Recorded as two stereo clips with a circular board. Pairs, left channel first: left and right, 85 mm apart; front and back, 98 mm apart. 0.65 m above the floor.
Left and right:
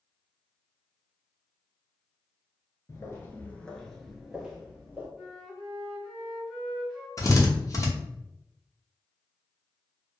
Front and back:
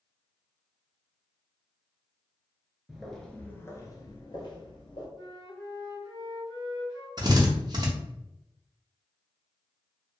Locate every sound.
2.9 s footsteps: 100° left, 0.7 m; by 5.1 s 20° right, 1.1 m
5.2 s a flute: 5° left, 1.8 m
7.2 s a drill: 135° left, 0.7 m